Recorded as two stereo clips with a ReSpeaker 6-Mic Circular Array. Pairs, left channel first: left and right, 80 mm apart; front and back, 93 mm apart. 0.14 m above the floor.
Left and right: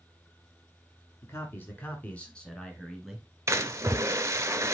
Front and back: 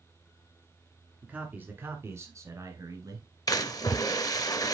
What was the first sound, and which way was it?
A man speaking, 115° left.